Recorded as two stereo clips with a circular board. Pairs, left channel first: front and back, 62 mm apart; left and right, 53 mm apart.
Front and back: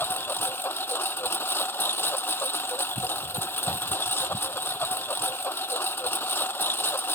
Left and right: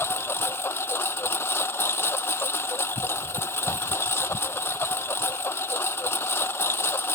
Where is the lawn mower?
55° left.